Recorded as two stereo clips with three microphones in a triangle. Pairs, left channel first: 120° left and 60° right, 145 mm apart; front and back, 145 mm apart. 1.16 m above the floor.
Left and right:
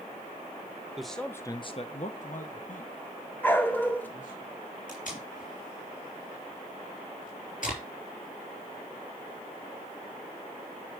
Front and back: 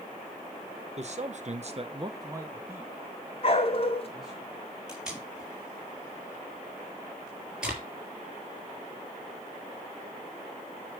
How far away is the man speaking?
About 1.2 m.